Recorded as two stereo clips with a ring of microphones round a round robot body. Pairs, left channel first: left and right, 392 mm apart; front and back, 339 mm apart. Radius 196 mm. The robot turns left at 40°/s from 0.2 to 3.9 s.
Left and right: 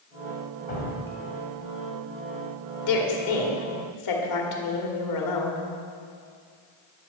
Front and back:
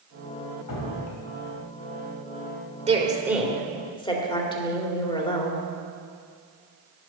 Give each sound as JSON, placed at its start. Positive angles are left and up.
{"t": 0.7, "sound": "dripping", "azimuth_deg": 25, "distance_m": 2.0}
{"t": 2.9, "sound": "a woman speaking", "azimuth_deg": 115, "distance_m": 2.0}